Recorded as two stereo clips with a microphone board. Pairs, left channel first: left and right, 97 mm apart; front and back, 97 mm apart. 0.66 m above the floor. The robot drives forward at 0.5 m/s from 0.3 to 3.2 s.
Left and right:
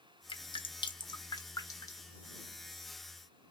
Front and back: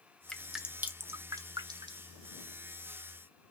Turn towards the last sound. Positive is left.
turn(degrees=160)